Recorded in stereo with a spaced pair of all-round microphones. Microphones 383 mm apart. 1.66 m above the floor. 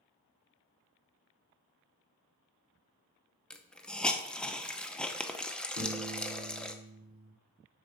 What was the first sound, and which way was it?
A hiss, centre (ahead or behind).